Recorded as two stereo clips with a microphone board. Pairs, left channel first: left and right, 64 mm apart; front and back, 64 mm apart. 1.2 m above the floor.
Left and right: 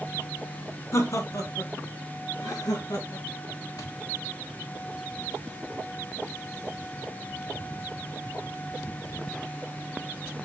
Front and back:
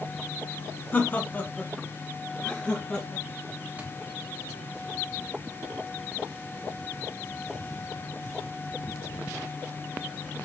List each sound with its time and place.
0.9 s laughter: 55° left, 0.9 m; by 3.2 s 75° left, 2.0 m
3.8 s a thud: 110° left, 1.7 m